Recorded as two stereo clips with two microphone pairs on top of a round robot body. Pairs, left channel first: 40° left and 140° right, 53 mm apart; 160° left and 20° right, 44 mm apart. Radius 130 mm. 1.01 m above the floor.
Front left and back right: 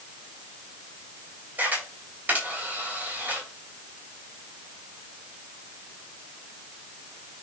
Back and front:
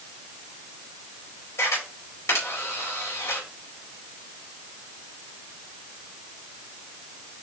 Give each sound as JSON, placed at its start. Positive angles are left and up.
{"t": 1.6, "sound": "a camera shutter", "azimuth_deg": 165, "distance_m": 4.0}